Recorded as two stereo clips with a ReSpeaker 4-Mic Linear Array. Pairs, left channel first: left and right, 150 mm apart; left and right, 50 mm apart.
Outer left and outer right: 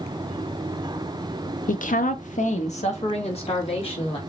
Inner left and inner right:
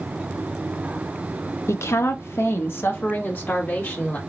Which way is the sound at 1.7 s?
60° left (ahead or behind).